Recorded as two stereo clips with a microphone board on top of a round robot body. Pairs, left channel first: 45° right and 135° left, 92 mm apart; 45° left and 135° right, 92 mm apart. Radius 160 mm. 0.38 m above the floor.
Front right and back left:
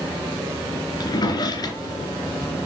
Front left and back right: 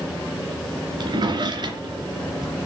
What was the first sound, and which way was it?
A drawer, 95° right.